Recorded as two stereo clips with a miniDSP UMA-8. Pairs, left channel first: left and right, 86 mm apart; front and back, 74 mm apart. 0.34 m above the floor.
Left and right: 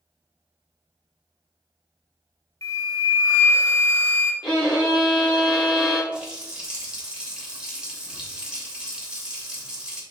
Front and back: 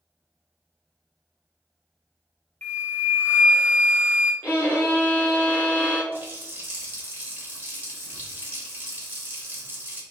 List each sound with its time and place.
2.6 s a flute: 55° left, 0.5 m
4.4 s a violin: 60° left, 1.7 m
6.1 s a running tap: 155° right, 0.8 m